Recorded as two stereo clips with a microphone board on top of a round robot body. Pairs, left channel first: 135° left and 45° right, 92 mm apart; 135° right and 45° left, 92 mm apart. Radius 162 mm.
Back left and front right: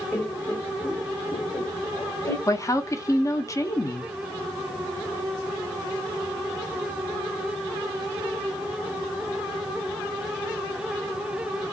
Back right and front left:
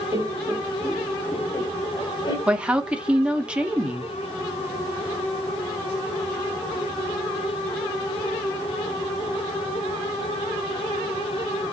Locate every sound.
0.1 s laughter: 70° left, 1.1 m; by 2.4 s 165° right, 1.7 m
2.5 s a woman speaking: 115° left, 0.9 m